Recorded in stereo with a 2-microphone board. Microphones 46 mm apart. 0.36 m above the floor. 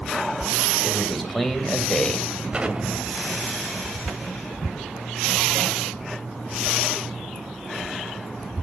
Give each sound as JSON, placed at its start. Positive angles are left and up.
{"t": 0.8, "sound": "a man speaking", "side_deg": 0, "distance_m": 2.0}
{"t": 2.5, "sound": "an explosion", "side_deg": -25, "distance_m": 1.9}